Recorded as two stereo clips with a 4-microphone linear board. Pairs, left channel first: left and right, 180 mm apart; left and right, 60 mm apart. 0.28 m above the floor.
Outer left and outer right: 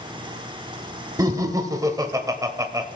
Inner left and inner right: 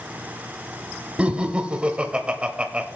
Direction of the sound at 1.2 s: 20° right (ahead or behind).